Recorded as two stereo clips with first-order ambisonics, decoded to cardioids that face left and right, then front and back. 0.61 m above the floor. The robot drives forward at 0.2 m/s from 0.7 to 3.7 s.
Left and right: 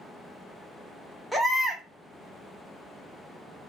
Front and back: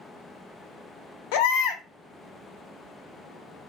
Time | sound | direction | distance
1.3 | a baby crying | straight ahead | 0.6 m